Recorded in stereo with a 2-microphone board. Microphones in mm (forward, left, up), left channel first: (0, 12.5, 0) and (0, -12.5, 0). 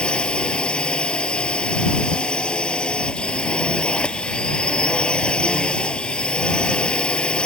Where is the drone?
40° left (ahead or behind).